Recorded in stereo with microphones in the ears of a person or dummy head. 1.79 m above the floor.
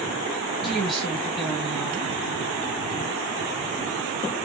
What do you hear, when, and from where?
0.6 s a woman speaking: centre (ahead or behind), 1.6 m